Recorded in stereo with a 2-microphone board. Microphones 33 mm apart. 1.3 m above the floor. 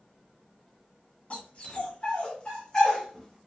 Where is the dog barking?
40° left (ahead or behind), 2.0 m; by 3.4 s 5° left (ahead or behind), 1.3 m.